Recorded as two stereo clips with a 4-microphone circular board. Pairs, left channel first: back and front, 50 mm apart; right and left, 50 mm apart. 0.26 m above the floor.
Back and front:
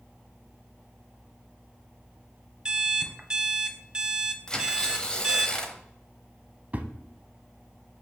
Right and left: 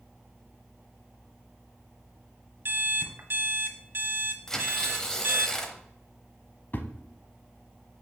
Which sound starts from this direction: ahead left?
An alarm clock, at 2.6 s.